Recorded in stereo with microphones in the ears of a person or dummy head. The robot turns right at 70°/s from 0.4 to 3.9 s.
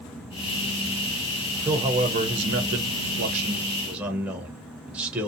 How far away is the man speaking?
About 0.6 m.